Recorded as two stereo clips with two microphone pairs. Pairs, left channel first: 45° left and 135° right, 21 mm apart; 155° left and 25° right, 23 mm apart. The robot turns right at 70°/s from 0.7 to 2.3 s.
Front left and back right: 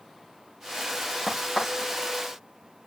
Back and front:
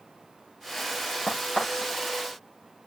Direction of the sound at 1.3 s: 125° left.